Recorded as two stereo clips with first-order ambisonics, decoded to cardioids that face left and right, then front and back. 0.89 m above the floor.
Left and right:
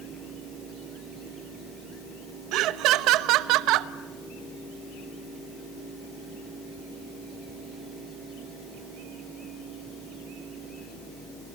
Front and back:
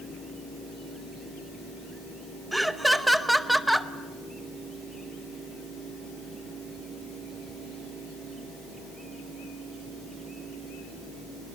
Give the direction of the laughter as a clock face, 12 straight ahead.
3 o'clock.